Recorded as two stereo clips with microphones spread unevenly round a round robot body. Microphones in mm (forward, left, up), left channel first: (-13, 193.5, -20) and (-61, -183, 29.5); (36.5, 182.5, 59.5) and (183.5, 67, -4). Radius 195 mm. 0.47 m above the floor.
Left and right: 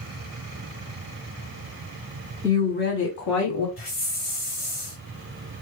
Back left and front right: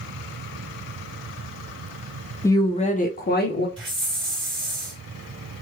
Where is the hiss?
5° left, 2 m.